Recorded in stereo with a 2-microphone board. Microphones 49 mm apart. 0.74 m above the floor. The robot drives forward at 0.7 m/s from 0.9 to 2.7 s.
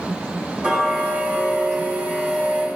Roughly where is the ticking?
Right.